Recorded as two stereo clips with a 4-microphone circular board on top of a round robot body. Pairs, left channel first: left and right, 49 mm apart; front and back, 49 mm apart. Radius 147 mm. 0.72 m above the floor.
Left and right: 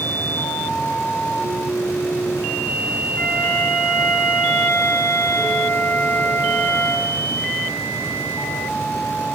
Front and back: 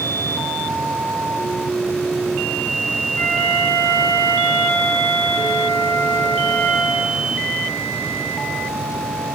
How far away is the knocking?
No knocking in this recording.